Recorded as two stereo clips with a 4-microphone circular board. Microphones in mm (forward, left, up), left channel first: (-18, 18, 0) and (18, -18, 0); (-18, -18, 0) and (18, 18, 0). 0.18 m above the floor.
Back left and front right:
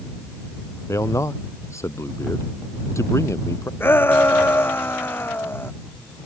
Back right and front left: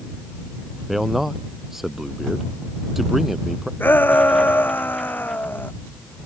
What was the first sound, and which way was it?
A man speaking, 130° left.